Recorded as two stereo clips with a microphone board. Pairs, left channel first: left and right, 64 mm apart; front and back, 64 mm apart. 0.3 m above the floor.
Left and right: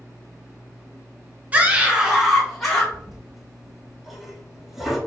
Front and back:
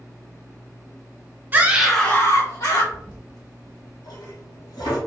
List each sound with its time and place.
1.5 s a scream: 140° right, 1.1 m; by 2.8 s 5° left, 1.6 m
2.9 s a toilet flushing: 5° right, 1.5 m